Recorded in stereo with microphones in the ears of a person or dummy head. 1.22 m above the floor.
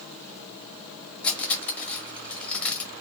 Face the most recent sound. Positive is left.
turn(degrees=10)  # may be behind; listen again after turning